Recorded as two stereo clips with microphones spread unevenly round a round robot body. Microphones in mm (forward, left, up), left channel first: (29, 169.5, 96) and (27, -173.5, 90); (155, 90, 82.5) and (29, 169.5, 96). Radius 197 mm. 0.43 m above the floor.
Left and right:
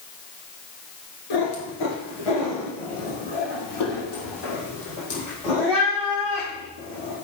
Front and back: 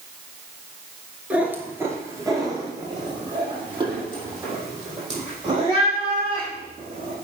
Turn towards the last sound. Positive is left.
turn(degrees=95)